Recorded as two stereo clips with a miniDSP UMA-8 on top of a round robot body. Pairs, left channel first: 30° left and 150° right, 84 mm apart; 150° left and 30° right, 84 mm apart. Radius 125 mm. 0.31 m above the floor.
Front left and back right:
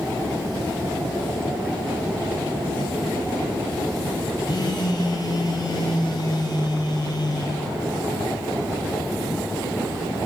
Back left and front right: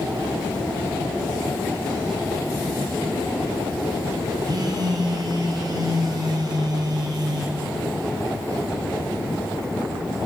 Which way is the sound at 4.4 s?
Straight ahead.